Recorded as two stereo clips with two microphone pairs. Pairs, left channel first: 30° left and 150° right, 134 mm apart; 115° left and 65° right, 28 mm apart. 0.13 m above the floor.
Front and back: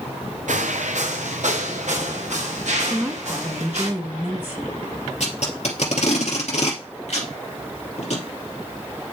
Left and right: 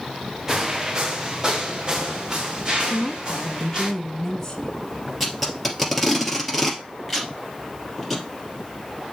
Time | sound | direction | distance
0.5 | footsteps | 135° right | 0.8 m
2.9 | a woman speaking | 155° left | 1.1 m
5.2 | tape being pulled | 25° left | 2.5 m